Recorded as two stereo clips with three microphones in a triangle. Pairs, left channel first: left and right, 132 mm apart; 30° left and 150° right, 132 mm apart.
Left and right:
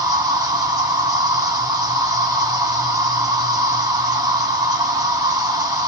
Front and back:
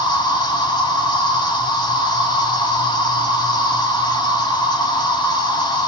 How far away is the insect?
About 0.9 m.